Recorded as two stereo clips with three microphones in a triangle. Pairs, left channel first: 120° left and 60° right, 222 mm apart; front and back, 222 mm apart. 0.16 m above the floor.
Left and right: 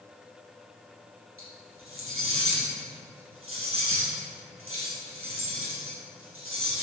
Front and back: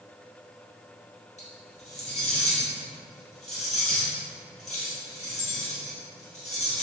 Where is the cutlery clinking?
55° right, 2.0 m.